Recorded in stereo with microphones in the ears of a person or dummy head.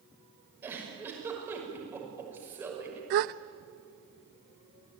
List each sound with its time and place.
0.6 s a giggle: 15° right (ahead or behind), 6 m
3.1 s a gasp: 45° right (ahead or behind), 0.6 m